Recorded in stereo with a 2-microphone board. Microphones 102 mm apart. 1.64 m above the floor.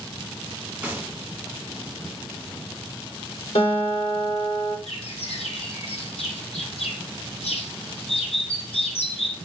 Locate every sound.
0.8 s a gunshot: 10° right (ahead or behind), 2.5 m
3.5 s a guitar: 70° left (ahead or behind), 4.5 m
4.9 s a bird: 70° left (ahead or behind), 1.6 m